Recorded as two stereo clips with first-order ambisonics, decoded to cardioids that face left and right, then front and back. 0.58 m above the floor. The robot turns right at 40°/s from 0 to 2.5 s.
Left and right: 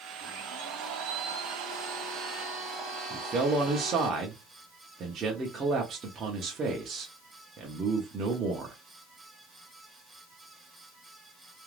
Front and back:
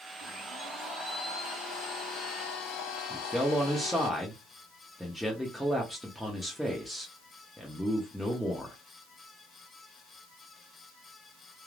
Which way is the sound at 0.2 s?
110° right.